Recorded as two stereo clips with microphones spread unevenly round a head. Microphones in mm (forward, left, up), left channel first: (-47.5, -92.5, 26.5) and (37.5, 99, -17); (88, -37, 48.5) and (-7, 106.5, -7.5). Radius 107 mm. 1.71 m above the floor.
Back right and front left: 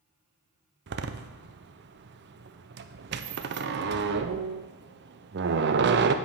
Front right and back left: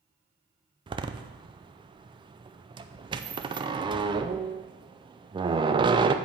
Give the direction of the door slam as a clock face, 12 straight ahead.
10 o'clock.